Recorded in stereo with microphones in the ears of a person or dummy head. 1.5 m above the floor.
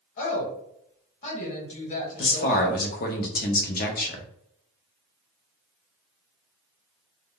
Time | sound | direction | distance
0.2 | a woman speaking | 45° left (ahead or behind) | 1.4 m
2.2 | a man speaking | 40° left (ahead or behind) | 0.5 m